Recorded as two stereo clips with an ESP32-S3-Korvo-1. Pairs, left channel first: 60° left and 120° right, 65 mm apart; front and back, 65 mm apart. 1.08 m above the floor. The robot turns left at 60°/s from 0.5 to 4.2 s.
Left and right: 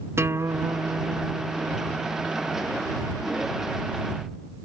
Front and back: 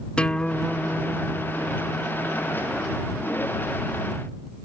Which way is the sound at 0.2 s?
75° right.